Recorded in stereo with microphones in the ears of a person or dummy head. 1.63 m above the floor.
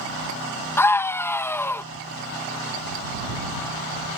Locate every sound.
0.8 s a scream: 10° left (ahead or behind)